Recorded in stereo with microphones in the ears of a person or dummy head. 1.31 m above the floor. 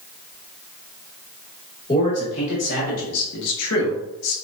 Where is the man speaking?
35° left (ahead or behind), 2.0 m; by 4.3 s 75° left (ahead or behind), 1.3 m.